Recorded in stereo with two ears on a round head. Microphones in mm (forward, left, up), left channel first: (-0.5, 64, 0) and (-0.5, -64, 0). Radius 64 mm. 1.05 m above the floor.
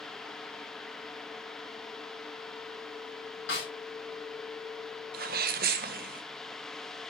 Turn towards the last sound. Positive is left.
turn(degrees=-70)  # may be behind; listen again after turning